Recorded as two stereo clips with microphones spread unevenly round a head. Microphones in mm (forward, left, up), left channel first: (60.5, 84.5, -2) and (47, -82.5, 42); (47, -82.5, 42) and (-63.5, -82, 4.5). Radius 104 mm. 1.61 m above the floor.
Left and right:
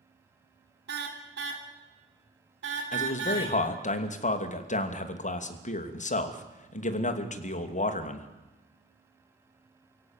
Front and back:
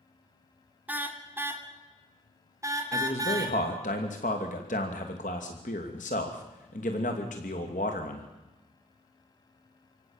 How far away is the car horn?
About 3 m.